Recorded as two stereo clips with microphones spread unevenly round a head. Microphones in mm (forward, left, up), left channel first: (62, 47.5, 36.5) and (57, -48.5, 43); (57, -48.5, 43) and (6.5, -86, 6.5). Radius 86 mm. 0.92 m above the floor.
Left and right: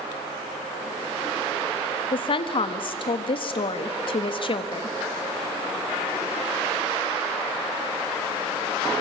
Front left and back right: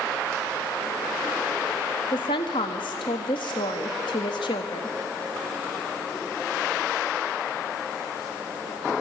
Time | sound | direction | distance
2.1 | a woman speaking | 70° left | 1.6 m